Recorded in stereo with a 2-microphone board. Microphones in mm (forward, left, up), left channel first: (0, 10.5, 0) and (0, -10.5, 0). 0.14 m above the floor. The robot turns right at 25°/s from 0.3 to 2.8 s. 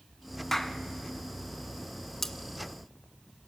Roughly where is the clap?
Centre.